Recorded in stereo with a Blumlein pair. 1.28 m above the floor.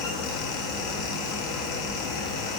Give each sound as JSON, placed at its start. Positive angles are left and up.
{"t": 0.0, "sound": "a fan", "azimuth_deg": 45, "distance_m": 0.7}